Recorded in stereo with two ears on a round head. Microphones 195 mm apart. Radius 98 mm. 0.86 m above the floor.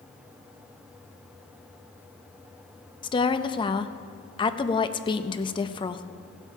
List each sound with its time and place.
3.0 s a woman speaking: 20° left (ahead or behind), 0.5 m